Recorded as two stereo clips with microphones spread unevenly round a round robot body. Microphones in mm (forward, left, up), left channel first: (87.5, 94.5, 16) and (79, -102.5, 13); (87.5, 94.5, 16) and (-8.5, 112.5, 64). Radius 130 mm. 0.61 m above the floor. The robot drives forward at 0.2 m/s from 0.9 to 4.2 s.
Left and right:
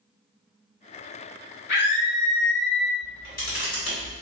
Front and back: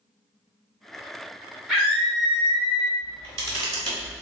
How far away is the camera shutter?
About 1.6 m.